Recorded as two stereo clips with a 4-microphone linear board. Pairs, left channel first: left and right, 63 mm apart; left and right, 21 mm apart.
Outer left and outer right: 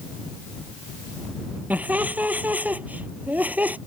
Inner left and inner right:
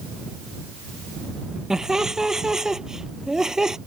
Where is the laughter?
25° right (ahead or behind).